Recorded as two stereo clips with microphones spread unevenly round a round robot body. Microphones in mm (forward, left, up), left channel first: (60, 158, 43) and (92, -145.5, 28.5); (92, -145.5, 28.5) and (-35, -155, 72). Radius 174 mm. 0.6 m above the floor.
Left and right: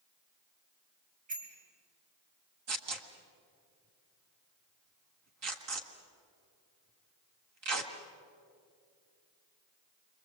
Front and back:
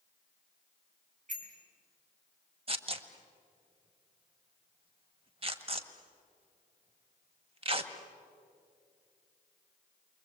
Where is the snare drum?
I don't hear a snare drum.